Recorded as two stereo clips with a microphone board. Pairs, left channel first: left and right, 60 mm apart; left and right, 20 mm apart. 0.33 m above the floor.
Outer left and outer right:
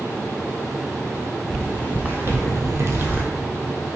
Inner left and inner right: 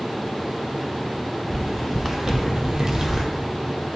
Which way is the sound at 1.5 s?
20° right (ahead or behind).